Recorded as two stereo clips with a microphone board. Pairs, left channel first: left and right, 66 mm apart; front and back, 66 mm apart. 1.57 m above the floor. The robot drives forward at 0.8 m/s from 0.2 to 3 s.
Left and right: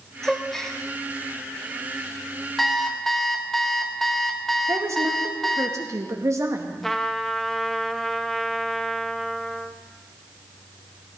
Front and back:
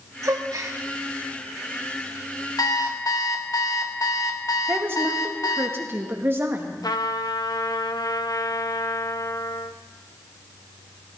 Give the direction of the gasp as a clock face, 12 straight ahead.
6 o'clock.